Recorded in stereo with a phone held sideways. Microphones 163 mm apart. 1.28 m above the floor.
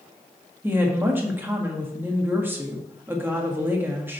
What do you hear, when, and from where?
0.6 s a woman speaking: 15° right (ahead or behind), 1.7 m